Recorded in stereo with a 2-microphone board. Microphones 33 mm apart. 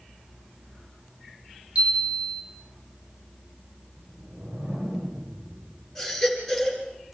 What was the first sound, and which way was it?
A chime, 40° right (ahead or behind).